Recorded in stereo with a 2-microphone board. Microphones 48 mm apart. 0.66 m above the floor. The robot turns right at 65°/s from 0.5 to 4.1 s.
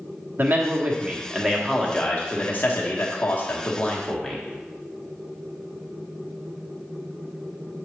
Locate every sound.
0.4 s a man speaking: 65° right, 1.3 m; by 4.4 s 165° left, 1.3 m